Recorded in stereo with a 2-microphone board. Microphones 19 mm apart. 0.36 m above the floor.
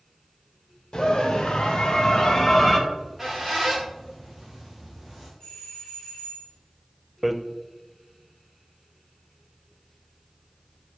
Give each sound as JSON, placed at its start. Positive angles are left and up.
{"t": 0.9, "sound": "a scream", "side_deg": 55, "distance_m": 2.0}
{"t": 2.9, "sound": "a squeak", "side_deg": -5, "distance_m": 3.5}
{"t": 5.4, "sound": "a doorbell", "side_deg": 40, "distance_m": 3.5}
{"t": 7.2, "sound": "hammering", "side_deg": -10, "distance_m": 0.6}